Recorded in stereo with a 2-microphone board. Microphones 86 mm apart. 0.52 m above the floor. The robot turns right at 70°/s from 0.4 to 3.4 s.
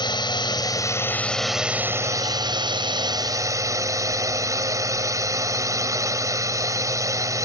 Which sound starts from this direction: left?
A drone, at 0.0 s.